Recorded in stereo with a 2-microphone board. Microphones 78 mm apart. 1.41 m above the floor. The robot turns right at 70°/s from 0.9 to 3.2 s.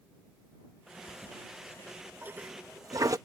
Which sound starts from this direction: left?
A toilet flushing, at 1.1 s.